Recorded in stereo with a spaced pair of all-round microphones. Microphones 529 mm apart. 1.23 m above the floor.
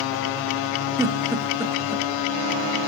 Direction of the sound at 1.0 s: 5° right (ahead or behind).